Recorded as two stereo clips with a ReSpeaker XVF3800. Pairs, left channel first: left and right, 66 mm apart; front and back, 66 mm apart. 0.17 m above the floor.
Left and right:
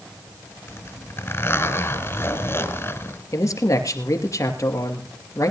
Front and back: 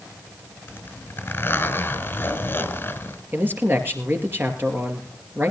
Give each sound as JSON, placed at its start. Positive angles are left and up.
{"t": 0.7, "sound": "a zipper", "azimuth_deg": 50, "distance_m": 1.5}
{"t": 3.3, "sound": "a man speaking", "azimuth_deg": 125, "distance_m": 2.5}